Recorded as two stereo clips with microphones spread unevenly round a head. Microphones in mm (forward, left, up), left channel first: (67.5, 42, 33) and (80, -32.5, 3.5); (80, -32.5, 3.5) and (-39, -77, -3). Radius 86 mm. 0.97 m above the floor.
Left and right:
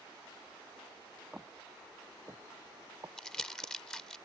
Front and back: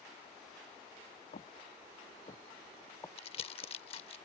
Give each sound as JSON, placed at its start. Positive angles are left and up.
{"t": 1.3, "sound": "footsteps", "azimuth_deg": 10}
{"t": 3.2, "sound": "crumpling", "azimuth_deg": 40}